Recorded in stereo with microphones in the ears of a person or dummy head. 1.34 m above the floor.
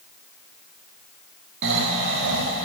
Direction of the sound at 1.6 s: 60° right (ahead or behind).